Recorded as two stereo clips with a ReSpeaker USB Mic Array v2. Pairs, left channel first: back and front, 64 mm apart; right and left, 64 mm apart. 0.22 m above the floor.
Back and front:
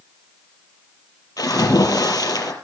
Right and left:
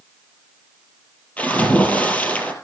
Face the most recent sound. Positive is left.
turn(degrees=-160)